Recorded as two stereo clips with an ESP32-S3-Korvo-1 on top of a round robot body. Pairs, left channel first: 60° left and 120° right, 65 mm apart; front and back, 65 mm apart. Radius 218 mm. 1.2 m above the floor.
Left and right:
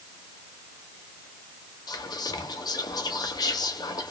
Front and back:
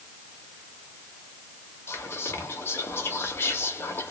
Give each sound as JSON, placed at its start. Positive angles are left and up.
{"t": 1.9, "sound": "whispering", "azimuth_deg": 55, "distance_m": 0.5}